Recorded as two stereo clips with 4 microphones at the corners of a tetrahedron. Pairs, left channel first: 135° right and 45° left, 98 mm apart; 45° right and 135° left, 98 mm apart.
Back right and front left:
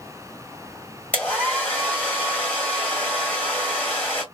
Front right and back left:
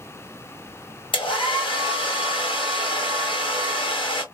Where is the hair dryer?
60° right, 2 m.